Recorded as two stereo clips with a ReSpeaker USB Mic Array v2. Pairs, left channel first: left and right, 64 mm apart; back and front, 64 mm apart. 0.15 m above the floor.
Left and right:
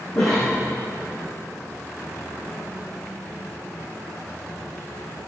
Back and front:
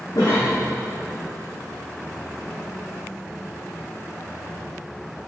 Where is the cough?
145° left, 5.5 m.